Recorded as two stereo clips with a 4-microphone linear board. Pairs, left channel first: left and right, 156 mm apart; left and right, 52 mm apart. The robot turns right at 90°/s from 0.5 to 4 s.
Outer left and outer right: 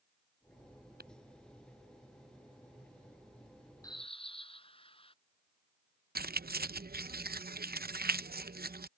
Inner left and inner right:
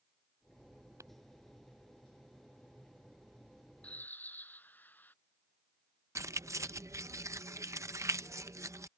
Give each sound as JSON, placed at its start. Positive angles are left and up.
{"t": 1.0, "sound": "tapping", "side_deg": -80}
{"t": 3.8, "sound": "a bird", "side_deg": 20}
{"t": 6.2, "sound": "keys jangling", "side_deg": -80}